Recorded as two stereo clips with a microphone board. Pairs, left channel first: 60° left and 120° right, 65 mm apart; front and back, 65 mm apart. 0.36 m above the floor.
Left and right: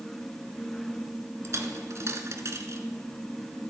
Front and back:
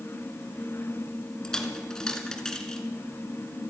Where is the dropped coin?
80° right, 1.8 m.